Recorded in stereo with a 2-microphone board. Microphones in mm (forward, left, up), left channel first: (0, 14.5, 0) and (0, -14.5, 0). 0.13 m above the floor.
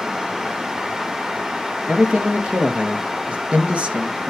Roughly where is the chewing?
No chewing in this recording.